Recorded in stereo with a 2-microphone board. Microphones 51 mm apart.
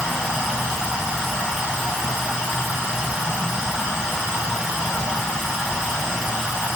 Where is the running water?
10° right (ahead or behind), 0.9 m.